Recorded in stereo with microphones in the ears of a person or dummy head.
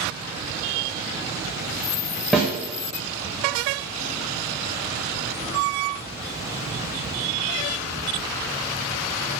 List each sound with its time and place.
2.3 s a snare drum: centre (ahead or behind), 0.6 m